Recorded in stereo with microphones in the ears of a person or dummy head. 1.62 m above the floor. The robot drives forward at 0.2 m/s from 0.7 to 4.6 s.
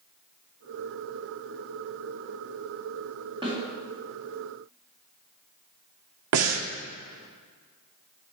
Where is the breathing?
85° right, 0.7 m.